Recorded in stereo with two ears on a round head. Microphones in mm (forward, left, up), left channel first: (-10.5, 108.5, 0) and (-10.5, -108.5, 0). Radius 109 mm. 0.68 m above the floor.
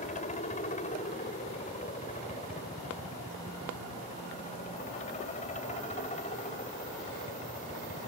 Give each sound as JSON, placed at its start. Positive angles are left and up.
{"t": 0.0, "sound": "a helicopter", "side_deg": 30}